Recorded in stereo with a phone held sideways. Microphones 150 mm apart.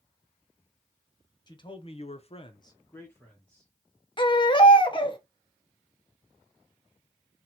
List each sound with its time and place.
1.5 s a man speaking: 30° left (ahead or behind), 0.9 m; by 3.7 s 5° left (ahead or behind), 1.4 m
4.2 s a baby crying: 35° left (ahead or behind), 0.6 m